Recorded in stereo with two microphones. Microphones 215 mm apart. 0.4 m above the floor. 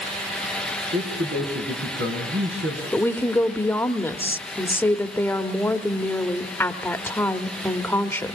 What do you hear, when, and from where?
0.9 s a man speaking: 60° right (ahead or behind), 4.5 m
2.9 s a woman speaking: 10° left (ahead or behind), 1.1 m